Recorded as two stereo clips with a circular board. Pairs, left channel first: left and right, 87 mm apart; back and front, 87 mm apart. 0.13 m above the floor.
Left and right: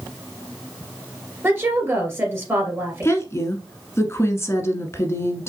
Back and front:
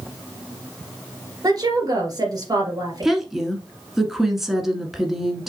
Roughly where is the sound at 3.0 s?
Left.